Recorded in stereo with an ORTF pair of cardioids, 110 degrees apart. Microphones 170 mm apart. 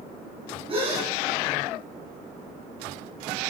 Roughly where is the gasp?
Ahead right.